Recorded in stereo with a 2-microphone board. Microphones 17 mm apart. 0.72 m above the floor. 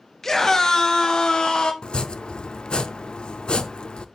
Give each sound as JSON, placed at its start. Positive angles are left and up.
{"t": 0.2, "sound": "a scream", "side_deg": 20, "distance_m": 0.9}
{"t": 1.8, "sound": "chopping", "side_deg": 60, "distance_m": 0.5}